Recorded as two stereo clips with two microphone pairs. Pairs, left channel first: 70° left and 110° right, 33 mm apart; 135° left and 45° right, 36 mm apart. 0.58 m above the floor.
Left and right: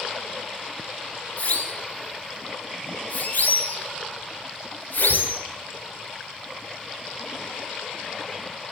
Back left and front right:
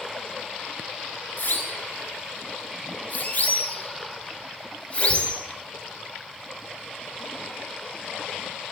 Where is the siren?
110° left, 5.5 m; by 5.4 s 80° left, 4 m.